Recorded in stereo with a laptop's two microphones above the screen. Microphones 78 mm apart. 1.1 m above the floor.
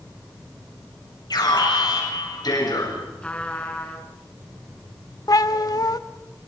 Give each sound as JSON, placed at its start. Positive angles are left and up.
{"t": 1.3, "sound": "an alarm", "side_deg": 60, "distance_m": 8.5}
{"t": 3.2, "sound": "a trumpet", "side_deg": 15, "distance_m": 4.0}
{"t": 5.3, "sound": "a cat meowing", "side_deg": 55, "distance_m": 0.8}